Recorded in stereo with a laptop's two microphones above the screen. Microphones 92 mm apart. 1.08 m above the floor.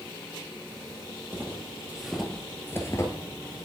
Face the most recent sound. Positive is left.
turn(degrees=40)  # may be behind; listen again after turning